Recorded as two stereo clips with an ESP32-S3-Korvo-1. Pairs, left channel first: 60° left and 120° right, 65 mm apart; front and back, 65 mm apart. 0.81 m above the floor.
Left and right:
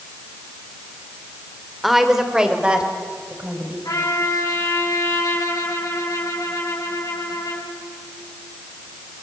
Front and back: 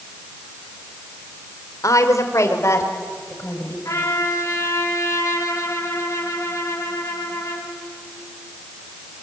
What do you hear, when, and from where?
1.8 s a woman speaking: 30° right, 2.5 m; by 3.8 s 50° right, 5.5 m
3.9 s a trumpet: 35° left, 7.5 m